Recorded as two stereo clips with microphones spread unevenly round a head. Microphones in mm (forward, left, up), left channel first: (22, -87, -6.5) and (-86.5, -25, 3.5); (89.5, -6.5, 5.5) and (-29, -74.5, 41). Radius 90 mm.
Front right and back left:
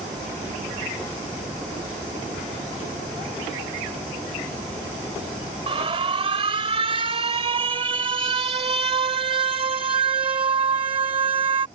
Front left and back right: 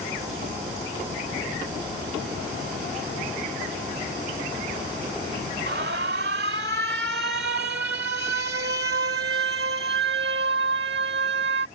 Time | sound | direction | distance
5.7 | an alarm | 170° right | ?